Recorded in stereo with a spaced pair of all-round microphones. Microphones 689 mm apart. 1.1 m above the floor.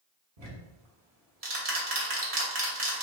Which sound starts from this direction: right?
Ticking, at 0.4 s.